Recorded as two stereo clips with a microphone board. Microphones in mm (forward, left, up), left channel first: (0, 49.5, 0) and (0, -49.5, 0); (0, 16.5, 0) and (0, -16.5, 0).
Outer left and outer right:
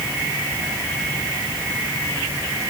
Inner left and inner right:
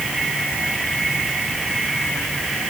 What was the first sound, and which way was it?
Only background noise.